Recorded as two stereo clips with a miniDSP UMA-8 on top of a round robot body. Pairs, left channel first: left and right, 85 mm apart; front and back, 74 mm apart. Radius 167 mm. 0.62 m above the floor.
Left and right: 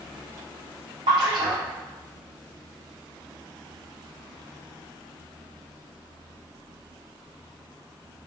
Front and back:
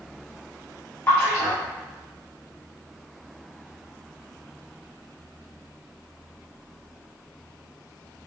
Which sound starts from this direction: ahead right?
A splash, at 1.1 s.